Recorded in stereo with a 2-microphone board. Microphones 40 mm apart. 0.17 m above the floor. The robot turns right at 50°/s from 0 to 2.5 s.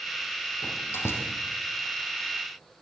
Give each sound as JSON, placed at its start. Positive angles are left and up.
{"t": 0.6, "sound": "a door slam", "side_deg": 65, "distance_m": 5.0}